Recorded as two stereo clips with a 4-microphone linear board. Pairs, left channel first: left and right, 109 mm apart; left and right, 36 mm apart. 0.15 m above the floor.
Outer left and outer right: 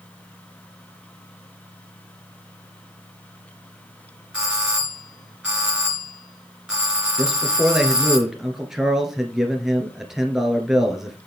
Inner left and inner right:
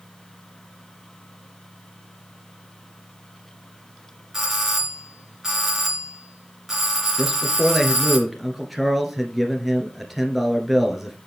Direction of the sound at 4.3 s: 5° right (ahead or behind).